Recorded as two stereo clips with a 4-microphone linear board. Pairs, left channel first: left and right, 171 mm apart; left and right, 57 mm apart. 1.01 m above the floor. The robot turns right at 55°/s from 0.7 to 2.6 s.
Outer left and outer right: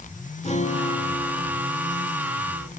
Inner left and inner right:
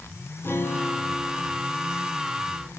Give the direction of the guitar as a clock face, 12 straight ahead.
7 o'clock.